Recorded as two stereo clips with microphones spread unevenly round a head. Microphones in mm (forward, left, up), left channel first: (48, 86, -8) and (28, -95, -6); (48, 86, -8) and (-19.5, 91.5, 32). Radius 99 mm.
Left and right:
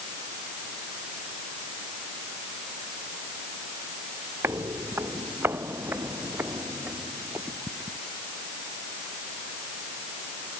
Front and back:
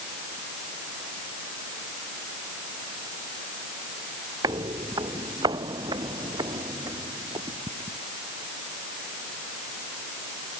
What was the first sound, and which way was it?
Footsteps, 175° right.